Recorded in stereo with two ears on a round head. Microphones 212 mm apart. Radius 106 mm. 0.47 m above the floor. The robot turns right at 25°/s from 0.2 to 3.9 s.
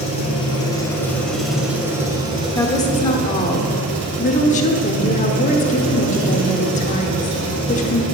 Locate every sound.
0.0 s an engine running: 150° left, 2.5 m; by 8.1 s 120° right, 2.5 m
2.5 s a woman speaking: 20° left, 1.0 m; by 8.0 s 55° left, 1.0 m